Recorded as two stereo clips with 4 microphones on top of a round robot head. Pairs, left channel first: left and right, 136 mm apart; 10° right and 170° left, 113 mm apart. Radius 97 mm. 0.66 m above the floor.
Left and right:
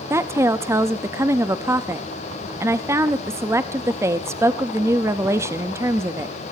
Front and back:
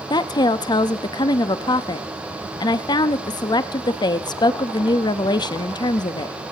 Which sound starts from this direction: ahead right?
A woman speaking, at 0.1 s.